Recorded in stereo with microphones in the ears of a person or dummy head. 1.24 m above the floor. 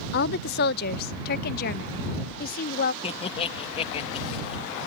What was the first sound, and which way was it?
A woman speaking, 55° left (ahead or behind).